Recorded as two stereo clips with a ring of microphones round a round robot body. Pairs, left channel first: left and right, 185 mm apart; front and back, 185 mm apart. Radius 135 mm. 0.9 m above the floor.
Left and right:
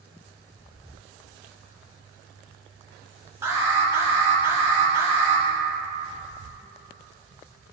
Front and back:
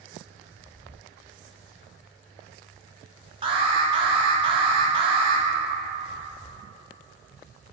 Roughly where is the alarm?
Behind right.